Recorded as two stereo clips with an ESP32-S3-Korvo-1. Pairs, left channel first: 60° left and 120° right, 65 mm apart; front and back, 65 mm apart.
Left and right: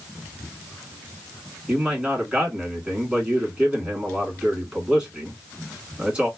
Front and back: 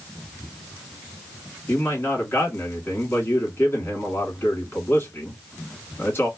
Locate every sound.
1.7 s a man speaking: 50° right, 1.8 m